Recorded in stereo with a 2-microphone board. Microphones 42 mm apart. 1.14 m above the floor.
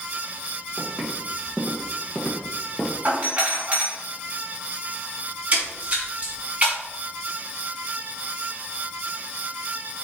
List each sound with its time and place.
0.8 s footsteps: 5° left (ahead or behind), 3 m; by 3.0 s 30° left (ahead or behind), 1.5 m
3.0 s a doorbell: 30° right (ahead or behind), 3.5 m
5.5 s a splash: 30° right (ahead or behind), 2 m